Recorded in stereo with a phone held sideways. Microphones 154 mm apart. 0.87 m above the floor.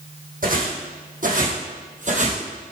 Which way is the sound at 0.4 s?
70° right (ahead or behind).